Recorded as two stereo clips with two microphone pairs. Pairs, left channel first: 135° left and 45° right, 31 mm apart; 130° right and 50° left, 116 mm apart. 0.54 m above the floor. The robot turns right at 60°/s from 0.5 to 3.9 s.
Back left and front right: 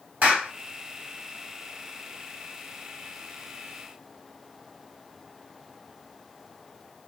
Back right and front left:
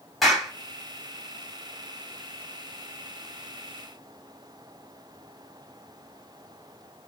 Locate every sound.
0.2 s a clap: 40° right, 2.5 m